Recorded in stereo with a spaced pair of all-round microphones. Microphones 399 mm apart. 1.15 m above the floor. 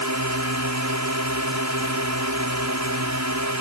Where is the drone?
45° right (ahead or behind).